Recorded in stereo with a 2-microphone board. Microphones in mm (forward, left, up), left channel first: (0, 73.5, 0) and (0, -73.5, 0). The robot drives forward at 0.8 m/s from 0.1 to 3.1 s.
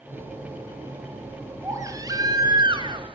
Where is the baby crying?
20° right (ahead or behind), 2.5 m; by 3.1 s 35° right (ahead or behind), 1.4 m.